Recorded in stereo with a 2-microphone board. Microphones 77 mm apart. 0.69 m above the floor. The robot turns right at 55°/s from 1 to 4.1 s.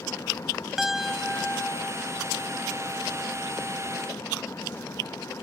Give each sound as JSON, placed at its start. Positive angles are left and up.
{"t": 0.8, "sound": "a piano", "azimuth_deg": -5}